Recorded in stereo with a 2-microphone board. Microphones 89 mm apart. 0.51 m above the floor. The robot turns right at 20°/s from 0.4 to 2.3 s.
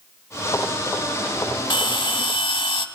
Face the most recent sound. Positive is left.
turn(degrees=75)  # may be behind; listen again after turning